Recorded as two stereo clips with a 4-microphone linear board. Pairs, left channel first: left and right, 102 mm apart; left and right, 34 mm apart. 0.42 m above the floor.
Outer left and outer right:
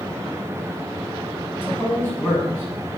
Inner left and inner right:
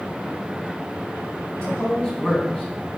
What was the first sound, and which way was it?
A man speaking, 20° left (ahead or behind).